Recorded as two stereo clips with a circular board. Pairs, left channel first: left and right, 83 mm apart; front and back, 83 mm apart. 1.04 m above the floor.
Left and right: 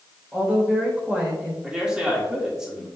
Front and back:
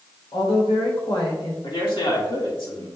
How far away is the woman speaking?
About 3.5 m.